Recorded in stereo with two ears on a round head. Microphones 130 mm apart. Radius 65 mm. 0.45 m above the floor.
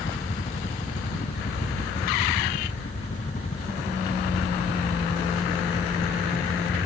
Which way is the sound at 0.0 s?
45° left (ahead or behind).